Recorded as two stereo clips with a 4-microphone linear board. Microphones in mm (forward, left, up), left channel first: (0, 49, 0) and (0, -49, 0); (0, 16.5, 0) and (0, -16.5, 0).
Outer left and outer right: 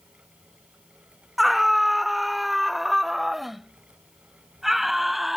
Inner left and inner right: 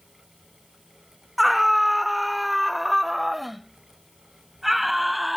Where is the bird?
No bird in this recording.